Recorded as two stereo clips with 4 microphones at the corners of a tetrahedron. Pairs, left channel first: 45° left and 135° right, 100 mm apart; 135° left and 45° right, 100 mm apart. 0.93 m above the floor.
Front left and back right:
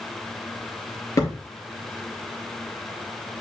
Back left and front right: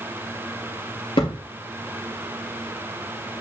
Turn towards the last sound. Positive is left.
turn(degrees=105)